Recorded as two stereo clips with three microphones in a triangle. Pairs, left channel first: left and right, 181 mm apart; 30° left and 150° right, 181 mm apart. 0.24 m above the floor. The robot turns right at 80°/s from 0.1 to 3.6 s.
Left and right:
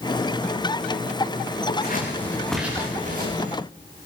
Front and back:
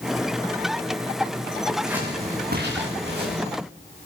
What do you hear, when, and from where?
1.7 s scissors: 110° left, 6.5 m; by 3.4 s 110° right, 6.5 m